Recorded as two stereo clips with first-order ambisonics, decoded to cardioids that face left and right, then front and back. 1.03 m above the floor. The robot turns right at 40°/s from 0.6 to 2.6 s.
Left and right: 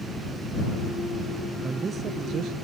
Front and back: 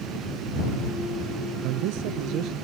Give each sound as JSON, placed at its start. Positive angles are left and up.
{"t": 1.6, "sound": "a man speaking", "azimuth_deg": -170}